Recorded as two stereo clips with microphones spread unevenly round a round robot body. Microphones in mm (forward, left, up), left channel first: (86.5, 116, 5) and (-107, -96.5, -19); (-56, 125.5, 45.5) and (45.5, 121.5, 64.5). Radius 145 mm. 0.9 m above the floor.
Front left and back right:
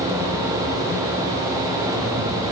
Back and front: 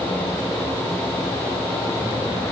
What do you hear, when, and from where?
Only background noise.